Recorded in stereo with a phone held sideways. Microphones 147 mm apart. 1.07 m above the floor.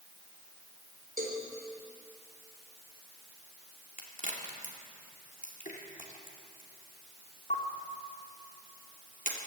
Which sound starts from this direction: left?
A crack, at 4.0 s.